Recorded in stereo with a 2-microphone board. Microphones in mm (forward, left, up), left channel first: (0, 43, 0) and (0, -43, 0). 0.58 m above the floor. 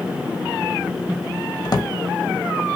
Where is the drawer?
50° left (ahead or behind), 0.5 m.